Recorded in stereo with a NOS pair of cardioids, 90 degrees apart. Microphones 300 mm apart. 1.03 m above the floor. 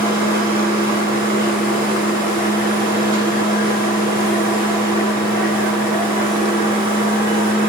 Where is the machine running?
30° right, 1.2 m.